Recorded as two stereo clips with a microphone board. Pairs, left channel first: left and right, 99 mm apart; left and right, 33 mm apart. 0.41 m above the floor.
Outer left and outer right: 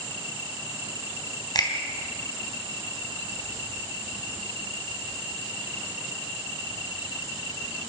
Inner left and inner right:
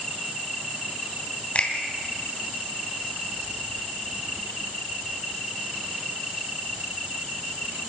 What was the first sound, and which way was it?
A finger snap, 45° left (ahead or behind).